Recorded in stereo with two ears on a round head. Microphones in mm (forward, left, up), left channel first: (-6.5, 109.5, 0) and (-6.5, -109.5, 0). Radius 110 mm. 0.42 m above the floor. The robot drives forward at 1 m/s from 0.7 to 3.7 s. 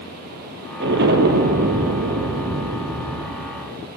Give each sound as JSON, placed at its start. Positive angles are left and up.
{"t": 0.8, "sound": "an explosion", "side_deg": -50, "distance_m": 3.0}